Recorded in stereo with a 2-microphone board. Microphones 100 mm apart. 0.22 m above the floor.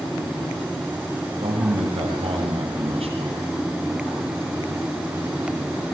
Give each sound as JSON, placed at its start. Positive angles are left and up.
{"t": 1.4, "sound": "a man speaking", "side_deg": -80, "distance_m": 7.5}